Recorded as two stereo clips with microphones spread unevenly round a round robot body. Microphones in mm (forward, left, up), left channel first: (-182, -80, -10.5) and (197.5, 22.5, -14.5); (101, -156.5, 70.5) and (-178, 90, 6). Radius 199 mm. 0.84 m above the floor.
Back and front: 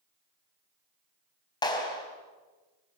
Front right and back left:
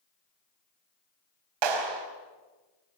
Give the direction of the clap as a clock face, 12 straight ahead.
8 o'clock.